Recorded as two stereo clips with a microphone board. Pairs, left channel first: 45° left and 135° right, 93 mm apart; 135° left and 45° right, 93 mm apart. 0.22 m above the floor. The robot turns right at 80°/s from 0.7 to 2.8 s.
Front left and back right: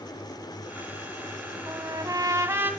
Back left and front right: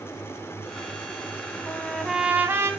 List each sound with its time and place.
1.7 s a trumpet: 160° right, 1.3 m; by 2.7 s 80° right, 1.3 m